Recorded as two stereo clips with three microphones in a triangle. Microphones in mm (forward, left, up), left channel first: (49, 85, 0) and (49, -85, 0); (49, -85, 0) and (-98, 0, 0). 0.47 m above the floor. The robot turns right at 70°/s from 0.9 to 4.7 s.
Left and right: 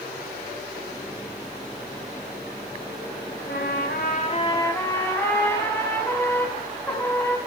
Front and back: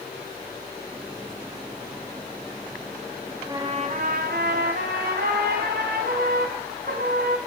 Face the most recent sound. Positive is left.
turn(degrees=165)